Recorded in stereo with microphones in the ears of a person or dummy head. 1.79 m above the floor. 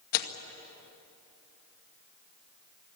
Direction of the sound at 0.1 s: 50° left (ahead or behind).